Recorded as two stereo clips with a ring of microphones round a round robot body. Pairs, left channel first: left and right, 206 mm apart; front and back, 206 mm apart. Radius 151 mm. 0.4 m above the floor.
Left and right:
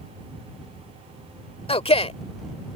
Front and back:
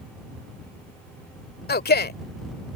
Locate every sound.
1.7 s a man speaking: 30° left